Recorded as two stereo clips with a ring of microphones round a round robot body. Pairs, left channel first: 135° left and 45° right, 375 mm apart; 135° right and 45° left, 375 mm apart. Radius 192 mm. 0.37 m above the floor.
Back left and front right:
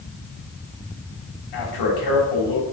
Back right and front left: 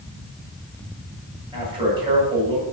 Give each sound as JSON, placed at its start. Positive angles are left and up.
{"t": 1.5, "sound": "a man speaking", "azimuth_deg": 120, "distance_m": 3.0}